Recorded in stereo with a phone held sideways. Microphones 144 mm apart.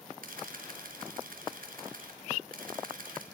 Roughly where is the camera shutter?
Right.